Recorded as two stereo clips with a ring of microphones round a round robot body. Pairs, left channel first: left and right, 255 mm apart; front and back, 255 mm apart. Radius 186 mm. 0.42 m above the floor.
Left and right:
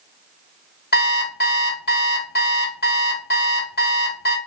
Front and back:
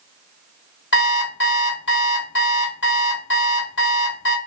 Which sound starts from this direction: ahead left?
An alarm clock, at 0.9 s.